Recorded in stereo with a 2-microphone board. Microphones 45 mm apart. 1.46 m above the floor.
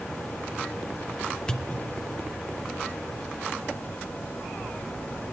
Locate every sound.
1.5 s a pop: 20° left (ahead or behind), 1.1 m